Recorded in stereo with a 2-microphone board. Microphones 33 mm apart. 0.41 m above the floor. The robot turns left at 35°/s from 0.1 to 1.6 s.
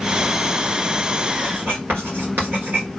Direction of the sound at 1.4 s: 85° right.